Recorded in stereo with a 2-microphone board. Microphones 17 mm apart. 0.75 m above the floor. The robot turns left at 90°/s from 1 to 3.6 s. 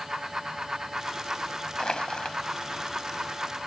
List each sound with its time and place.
1.8 s crushing: 120° left; by 2.4 s 70° left